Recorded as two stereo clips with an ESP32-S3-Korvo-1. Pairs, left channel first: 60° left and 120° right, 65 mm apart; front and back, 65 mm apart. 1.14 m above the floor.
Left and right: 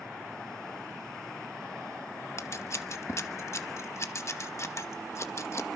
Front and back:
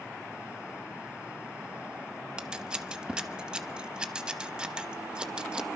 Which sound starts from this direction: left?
Scissors, at 2.4 s.